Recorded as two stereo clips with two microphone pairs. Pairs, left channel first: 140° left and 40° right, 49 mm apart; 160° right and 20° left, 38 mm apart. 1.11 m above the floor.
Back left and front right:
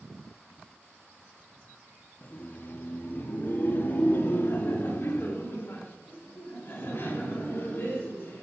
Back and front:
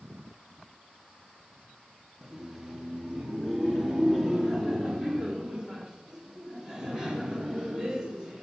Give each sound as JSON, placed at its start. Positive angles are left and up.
{"t": 2.2, "sound": "laughter", "azimuth_deg": 95, "distance_m": 0.9}